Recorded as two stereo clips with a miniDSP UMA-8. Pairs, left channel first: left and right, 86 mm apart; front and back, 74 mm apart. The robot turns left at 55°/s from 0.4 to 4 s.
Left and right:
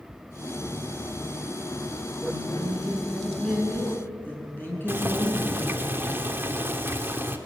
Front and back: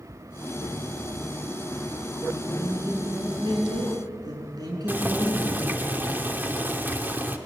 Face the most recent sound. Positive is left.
turn(degrees=-135)